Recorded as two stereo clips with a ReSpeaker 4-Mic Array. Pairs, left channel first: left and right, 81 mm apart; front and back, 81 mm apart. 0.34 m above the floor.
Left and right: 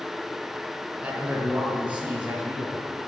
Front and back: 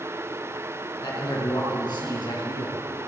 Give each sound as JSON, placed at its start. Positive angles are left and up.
{"t": 1.0, "sound": "a man speaking", "azimuth_deg": -20, "distance_m": 4.5}